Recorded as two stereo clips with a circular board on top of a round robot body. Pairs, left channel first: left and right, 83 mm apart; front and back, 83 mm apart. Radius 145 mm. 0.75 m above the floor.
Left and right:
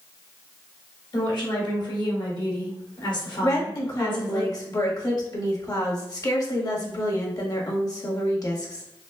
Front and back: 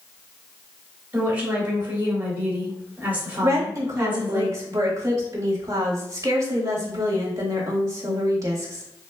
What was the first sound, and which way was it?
A woman speaking, 110° left.